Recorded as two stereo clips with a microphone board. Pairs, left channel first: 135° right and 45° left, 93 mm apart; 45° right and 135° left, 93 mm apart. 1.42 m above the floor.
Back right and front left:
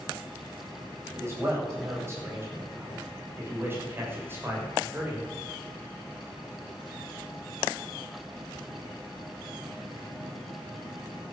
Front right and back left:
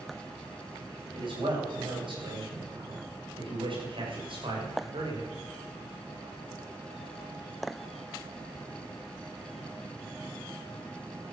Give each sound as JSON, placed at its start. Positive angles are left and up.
{"t": 1.1, "sound": "a man speaking", "azimuth_deg": 105, "distance_m": 8.5}